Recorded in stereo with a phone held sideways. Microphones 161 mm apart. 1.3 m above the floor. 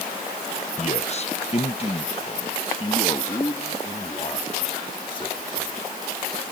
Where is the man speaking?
45° left (ahead or behind); by 5.9 s 35° left (ahead or behind).